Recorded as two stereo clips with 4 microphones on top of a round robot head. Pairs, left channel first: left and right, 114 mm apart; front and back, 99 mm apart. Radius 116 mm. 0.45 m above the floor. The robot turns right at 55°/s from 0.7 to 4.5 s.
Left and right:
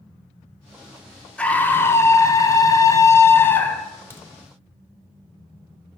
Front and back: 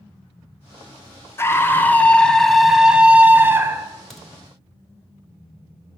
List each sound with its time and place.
1.4 s a scream: 20° left, 0.7 m; by 3.9 s 160° left, 0.7 m
4.1 s a crack: 80° left, 1.1 m; by 4.3 s 90° left, 1.1 m